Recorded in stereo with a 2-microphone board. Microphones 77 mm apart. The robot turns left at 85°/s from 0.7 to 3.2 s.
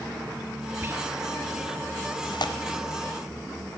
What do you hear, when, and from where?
0.8 s whispering: 30° right (ahead or behind), 0.8 m; by 1.1 s 35° right (ahead or behind), 0.8 m
2.2 s tearing paper: 80° left, 1.0 m; by 2.5 s 65° left (ahead or behind), 1.0 m